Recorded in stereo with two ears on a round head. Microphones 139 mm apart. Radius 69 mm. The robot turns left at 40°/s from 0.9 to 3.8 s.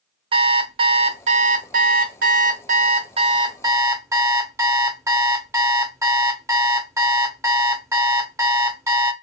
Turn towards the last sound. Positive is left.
turn(degrees=-160)